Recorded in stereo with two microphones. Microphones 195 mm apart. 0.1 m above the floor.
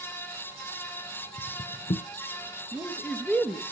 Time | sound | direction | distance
1.4 | footsteps | 55° left (ahead or behind) | 0.6 m
2.7 | a man speaking | 5° left (ahead or behind) | 1.1 m